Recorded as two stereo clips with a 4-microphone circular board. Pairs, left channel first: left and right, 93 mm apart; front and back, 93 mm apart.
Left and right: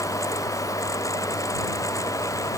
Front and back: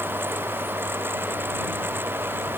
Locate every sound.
Only background noise.